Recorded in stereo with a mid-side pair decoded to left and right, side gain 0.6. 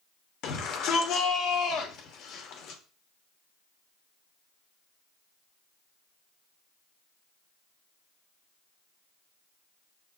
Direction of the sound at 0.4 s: 65° left.